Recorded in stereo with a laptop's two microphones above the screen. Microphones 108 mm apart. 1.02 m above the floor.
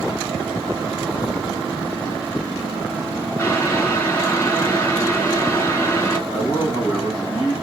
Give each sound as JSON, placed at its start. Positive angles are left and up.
{"t": 3.4, "sound": "boiling", "side_deg": 30, "distance_m": 1.9}
{"t": 6.3, "sound": "a man speaking", "side_deg": 75, "distance_m": 2.0}